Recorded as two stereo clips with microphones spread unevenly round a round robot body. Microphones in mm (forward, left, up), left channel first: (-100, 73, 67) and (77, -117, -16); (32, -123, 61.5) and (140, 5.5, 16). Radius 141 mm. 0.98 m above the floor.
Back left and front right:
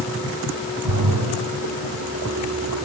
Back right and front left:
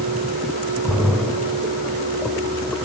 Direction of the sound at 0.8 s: 50° right.